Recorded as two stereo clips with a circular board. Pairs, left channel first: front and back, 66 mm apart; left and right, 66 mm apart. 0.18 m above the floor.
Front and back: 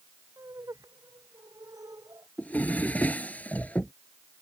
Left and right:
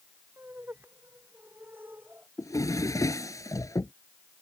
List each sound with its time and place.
0.4 s laughter: 150° right
2.4 s a drawer: 65° left